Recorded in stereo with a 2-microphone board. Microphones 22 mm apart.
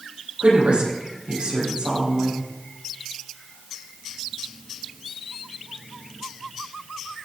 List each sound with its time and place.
0.4 s a woman speaking: 75° right (ahead or behind), 6 m